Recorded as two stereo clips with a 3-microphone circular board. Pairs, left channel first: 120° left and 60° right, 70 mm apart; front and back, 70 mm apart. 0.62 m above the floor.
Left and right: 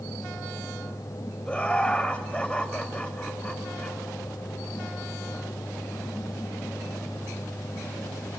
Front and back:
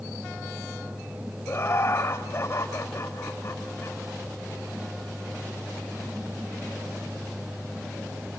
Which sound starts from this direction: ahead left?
Laughter, at 1.5 s.